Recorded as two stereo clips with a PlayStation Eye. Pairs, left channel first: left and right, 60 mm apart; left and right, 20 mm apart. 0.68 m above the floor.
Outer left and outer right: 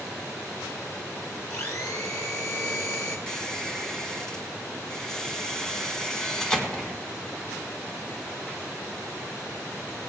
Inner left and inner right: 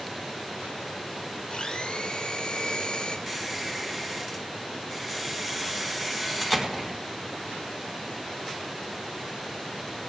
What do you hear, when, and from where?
1.5 s a blender: 70° left (ahead or behind), 3 m
3.3 s a squeak: 10° left (ahead or behind), 2.0 m